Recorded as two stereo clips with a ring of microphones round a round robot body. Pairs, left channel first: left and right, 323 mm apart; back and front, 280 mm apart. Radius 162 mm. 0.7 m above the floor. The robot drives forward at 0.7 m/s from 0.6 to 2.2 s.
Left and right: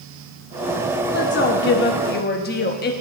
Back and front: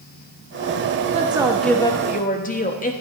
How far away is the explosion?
No explosion in this recording.